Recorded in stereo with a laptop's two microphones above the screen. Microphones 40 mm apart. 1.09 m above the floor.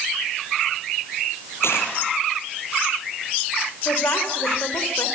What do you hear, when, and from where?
1.6 s a dropped coin: 75° left (ahead or behind), 8 m
3.9 s a woman speaking: 75° left (ahead or behind), 5 m